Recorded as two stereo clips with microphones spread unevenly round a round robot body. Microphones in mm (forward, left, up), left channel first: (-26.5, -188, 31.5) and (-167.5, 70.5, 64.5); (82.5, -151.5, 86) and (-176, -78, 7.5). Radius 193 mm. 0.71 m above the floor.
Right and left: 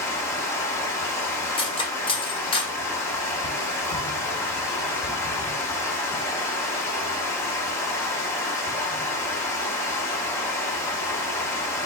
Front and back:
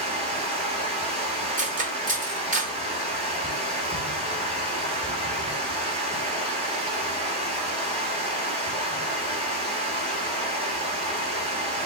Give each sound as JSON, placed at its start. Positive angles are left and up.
{"t": 0.0, "sound": "running water", "azimuth_deg": -140, "distance_m": 1.7}
{"t": 1.6, "sound": "cutlery clinking", "azimuth_deg": -135, "distance_m": 1.5}